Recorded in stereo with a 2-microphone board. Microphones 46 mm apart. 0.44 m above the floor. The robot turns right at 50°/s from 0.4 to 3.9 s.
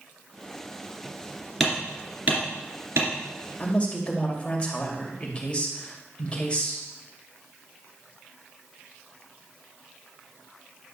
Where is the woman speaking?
35° left (ahead or behind), 2 m; by 6.8 s 25° left (ahead or behind), 2 m.